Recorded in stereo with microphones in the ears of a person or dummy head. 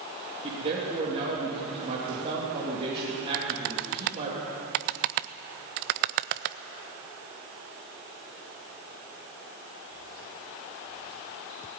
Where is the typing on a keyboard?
55° right (ahead or behind), 0.6 m.